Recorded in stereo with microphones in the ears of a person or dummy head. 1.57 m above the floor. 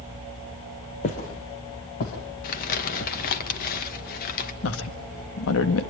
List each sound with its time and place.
1.0 s footsteps: 40° left (ahead or behind), 2.5 m; by 3.1 s 60° left (ahead or behind), 4.5 m
2.4 s crumpling: 50° left (ahead or behind), 2.5 m
4.6 s a woman speaking: 75° left (ahead or behind), 1.9 m